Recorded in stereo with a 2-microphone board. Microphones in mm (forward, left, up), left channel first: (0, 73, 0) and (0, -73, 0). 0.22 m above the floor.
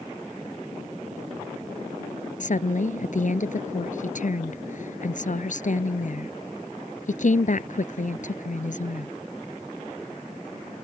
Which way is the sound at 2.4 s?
60° left (ahead or behind).